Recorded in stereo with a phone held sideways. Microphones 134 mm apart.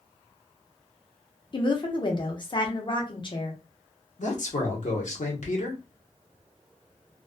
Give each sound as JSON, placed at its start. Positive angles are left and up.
{"t": 1.5, "sound": "a woman speaking", "side_deg": 35, "distance_m": 0.7}
{"t": 4.2, "sound": "a man speaking", "side_deg": 65, "distance_m": 1.0}